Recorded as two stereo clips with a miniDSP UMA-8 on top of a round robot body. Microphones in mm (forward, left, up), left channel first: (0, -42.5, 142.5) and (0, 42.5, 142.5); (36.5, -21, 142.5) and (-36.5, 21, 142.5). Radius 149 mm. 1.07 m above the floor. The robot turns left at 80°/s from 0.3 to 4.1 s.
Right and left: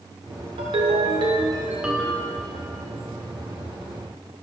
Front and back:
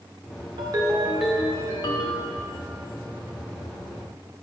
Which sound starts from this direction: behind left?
A ringtone, at 0.6 s.